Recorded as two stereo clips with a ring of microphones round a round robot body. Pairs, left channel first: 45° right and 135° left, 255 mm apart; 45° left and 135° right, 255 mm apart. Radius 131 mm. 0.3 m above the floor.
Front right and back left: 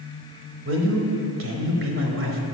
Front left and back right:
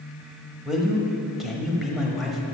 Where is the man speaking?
135° left, 1.2 m.